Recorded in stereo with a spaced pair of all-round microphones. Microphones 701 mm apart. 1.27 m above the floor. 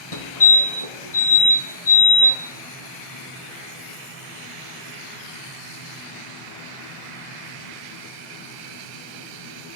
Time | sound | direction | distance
0.1 | a fire alarm | 50° left (ahead or behind) | 2.5 m